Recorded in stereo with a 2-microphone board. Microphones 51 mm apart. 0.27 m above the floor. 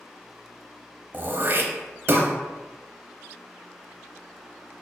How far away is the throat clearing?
About 0.7 m.